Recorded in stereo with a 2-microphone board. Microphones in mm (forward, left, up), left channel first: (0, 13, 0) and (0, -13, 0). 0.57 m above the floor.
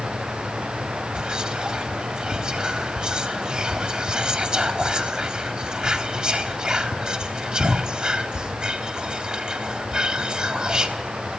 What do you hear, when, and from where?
1.1 s whispering: 30° right (ahead or behind), 1.2 m